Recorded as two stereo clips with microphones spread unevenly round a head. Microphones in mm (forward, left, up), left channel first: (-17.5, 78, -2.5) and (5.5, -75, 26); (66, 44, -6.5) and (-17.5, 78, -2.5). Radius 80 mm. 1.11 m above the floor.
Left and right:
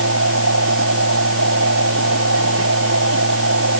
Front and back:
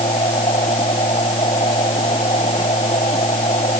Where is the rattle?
No rattle in this recording.